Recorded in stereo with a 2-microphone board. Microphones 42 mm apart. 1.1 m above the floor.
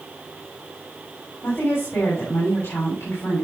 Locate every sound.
1.4 s a woman speaking: 70° left (ahead or behind), 3.5 m